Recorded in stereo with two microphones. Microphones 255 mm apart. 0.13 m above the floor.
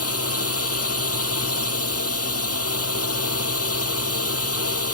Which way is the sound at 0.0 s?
70° left (ahead or behind).